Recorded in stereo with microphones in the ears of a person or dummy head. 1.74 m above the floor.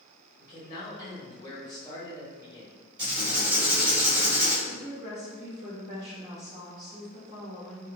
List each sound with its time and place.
0.4 s a man speaking: 25° left (ahead or behind), 1.2 m
3.0 s writing: 20° right (ahead or behind), 1.6 m
4.7 s a woman speaking: 25° right (ahead or behind), 1.2 m